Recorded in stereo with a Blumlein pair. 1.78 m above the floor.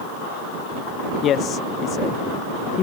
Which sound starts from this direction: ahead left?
A man speaking, at 1.2 s.